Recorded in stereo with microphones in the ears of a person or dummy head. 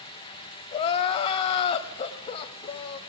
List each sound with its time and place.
0.7 s crying: 30° left (ahead or behind), 1.9 m